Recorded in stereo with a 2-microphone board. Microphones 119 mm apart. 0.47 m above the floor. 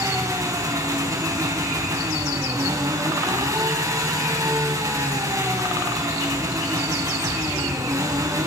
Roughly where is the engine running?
Right.